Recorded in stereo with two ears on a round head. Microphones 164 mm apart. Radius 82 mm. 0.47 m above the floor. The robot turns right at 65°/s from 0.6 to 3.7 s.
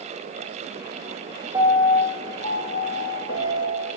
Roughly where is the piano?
Ahead.